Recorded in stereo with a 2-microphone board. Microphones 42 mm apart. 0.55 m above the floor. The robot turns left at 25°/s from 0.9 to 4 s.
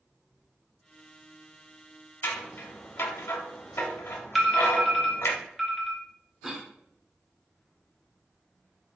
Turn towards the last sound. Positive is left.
turn(degrees=-10)  # may be behind; listen again after turning